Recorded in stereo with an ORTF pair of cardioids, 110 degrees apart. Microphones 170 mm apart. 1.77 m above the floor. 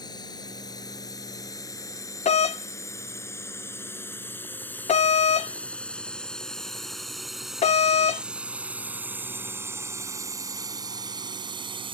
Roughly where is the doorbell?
Ahead left.